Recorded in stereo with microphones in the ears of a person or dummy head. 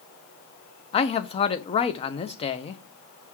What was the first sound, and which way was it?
A man speaking, 25° left (ahead or behind).